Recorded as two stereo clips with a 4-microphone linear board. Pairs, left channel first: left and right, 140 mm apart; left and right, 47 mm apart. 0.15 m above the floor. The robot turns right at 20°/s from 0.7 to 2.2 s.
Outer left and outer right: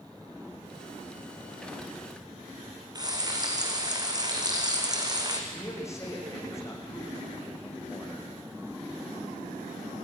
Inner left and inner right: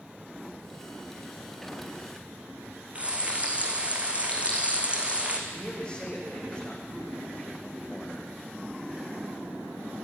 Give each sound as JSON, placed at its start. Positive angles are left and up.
{"t": 3.0, "sound": "frying", "side_deg": -30, "distance_m": 2.5}
{"t": 5.5, "sound": "a man speaking", "side_deg": 20, "distance_m": 7.0}